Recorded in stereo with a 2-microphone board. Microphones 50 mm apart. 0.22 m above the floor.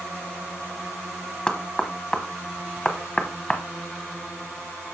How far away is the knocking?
About 1.0 m.